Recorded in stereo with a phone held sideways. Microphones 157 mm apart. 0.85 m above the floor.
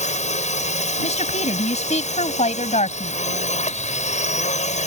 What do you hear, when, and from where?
0.0 s a drone: 50° left (ahead or behind)
1.0 s a woman speaking: 50° left (ahead or behind)